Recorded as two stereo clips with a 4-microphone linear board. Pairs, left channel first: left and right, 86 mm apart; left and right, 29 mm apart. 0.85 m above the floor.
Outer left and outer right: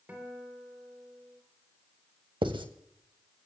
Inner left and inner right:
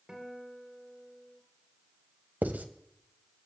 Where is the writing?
75° right (ahead or behind), 1.5 m.